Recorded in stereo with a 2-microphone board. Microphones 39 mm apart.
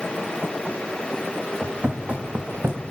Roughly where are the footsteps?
Right.